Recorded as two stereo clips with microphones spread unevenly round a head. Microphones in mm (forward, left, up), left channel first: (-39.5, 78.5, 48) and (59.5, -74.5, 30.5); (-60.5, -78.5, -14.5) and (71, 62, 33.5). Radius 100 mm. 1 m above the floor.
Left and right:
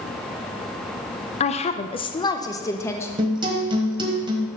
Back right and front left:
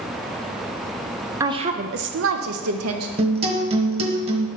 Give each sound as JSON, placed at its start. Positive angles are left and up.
{"t": 1.4, "sound": "a woman speaking", "azimuth_deg": 135, "distance_m": 0.6}
{"t": 3.2, "sound": "a guitar", "azimuth_deg": 10, "distance_m": 1.1}